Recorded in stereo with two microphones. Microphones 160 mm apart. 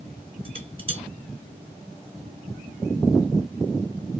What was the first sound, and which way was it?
Dishes clattering, 35° right (ahead or behind).